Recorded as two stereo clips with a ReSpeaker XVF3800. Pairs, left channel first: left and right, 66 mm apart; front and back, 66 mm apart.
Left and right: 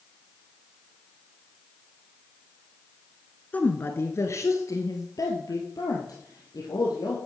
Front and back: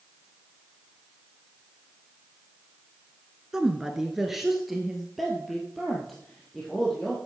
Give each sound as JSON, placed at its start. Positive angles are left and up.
{"t": 3.5, "sound": "a woman speaking", "azimuth_deg": 110, "distance_m": 1.2}